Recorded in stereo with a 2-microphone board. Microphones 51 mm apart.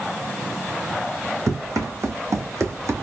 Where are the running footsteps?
75° right (ahead or behind), 1.7 m; by 3.0 s 60° right (ahead or behind), 1.3 m.